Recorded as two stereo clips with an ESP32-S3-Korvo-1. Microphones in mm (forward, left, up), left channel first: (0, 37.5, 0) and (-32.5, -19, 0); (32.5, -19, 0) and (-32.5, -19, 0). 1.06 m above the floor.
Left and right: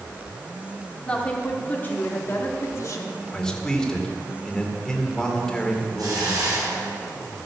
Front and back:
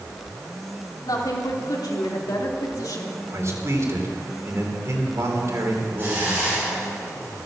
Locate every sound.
1.0 s a woman speaking: 15° right, 3 m; by 3.2 s 30° left, 2 m
3.3 s a man speaking: 140° left, 2.5 m
6.0 s a hiss: 120° right, 7 m